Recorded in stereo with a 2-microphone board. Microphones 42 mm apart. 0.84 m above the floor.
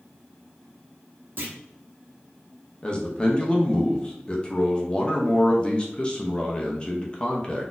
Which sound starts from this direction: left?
A man speaking, at 2.8 s.